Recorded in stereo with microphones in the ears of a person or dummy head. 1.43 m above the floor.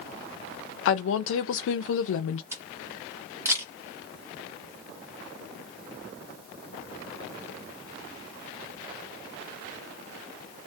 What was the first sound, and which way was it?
A woman speaking, 70° left (ahead or behind).